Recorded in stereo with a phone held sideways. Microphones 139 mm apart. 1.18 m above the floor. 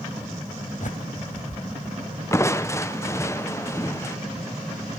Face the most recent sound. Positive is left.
turn(degrees=20)  # may be behind; listen again after turning